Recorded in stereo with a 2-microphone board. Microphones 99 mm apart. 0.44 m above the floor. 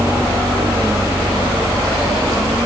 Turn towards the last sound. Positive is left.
No sound to turn to.